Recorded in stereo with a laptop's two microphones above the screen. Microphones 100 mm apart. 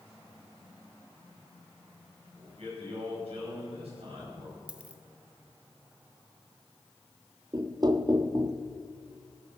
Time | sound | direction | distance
2.3 | a man speaking | 70° right (ahead or behind) | 5 m
4.7 | a dropped coin | 10° right (ahead or behind) | 0.7 m
7.5 | knocking | 40° right (ahead or behind) | 0.5 m